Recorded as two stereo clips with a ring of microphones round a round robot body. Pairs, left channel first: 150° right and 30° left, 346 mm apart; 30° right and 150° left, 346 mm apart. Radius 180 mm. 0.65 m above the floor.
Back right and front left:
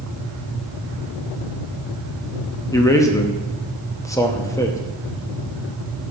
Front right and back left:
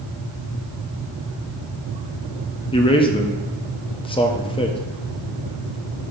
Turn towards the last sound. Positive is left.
turn(degrees=-85)